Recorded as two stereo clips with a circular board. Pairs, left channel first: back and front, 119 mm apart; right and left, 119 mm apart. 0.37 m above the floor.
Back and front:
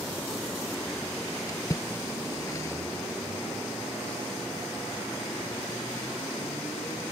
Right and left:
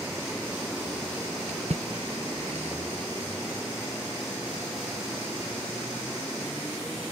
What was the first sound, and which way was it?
A splash, 115° left.